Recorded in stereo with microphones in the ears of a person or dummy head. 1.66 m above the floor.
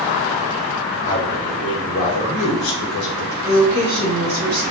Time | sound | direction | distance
1.0 | a man speaking | 30° left (ahead or behind) | 3.5 m
3.4 | a woman speaking | 10° right (ahead or behind) | 4 m